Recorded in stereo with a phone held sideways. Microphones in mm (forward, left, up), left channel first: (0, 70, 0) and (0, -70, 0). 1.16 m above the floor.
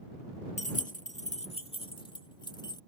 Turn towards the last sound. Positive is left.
turn(degrees=30)  # may be behind; listen again after turning